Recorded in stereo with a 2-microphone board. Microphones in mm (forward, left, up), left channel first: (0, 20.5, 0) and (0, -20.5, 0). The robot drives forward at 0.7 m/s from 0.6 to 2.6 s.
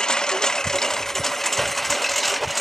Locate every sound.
0.0 s a lawn mower: 20° left (ahead or behind); by 2.6 s centre (ahead or behind)